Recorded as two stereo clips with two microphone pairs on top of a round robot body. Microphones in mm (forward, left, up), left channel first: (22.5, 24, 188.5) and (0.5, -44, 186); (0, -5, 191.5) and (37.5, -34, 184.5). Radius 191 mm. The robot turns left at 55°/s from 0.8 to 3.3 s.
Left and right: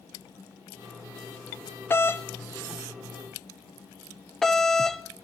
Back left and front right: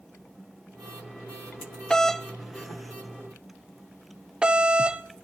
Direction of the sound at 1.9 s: 65° left.